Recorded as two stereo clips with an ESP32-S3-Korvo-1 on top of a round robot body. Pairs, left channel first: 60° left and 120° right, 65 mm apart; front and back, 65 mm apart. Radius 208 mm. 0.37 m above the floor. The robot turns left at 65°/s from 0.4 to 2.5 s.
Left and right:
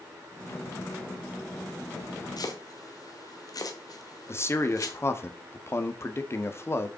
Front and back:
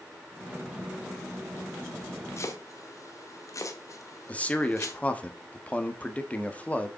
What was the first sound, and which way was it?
Chopping, 45° left.